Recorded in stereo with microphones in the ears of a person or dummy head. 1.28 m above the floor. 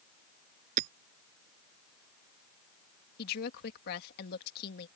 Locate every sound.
0.8 s hammering: 50° right (ahead or behind)
3.2 s a woman speaking: 60° left (ahead or behind)